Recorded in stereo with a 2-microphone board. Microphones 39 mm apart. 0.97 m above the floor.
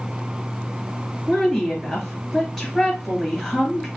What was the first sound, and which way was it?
A woman speaking, 10° left (ahead or behind).